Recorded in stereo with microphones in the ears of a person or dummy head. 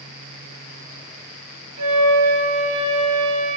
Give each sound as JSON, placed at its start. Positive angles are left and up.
{"t": 1.8, "sound": "a flute", "side_deg": -40, "distance_m": 1.6}